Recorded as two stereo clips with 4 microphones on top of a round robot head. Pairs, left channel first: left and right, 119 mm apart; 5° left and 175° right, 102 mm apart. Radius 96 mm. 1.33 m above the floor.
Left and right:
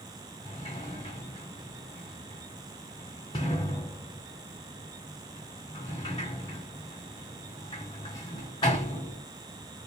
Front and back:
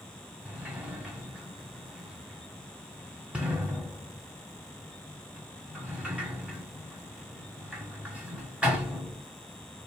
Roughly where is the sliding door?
Behind left.